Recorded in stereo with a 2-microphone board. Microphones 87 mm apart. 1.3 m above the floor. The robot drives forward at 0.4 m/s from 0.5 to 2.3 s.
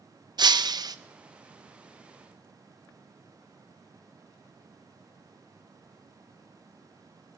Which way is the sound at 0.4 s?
55° right (ahead or behind).